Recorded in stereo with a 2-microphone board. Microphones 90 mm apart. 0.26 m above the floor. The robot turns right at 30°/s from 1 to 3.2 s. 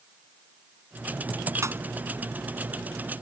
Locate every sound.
1.6 s a pop: 35° right (ahead or behind); by 1.8 s 30° right (ahead or behind)